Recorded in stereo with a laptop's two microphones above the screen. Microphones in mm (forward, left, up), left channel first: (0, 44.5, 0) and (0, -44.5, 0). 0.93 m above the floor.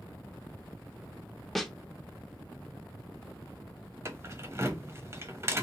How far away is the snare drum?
About 0.5 m.